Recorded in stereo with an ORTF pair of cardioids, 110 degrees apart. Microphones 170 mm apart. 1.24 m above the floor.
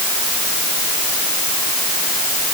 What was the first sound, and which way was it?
Only background noise.